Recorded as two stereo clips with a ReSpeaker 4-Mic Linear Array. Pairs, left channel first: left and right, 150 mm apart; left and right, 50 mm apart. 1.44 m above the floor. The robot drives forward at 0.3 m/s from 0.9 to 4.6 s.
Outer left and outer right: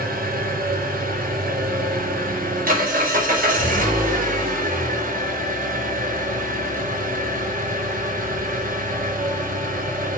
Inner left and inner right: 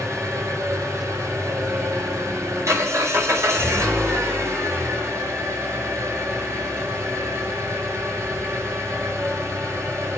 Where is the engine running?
80° right, 5 m; by 10.2 s 70° right (ahead or behind), 5.5 m.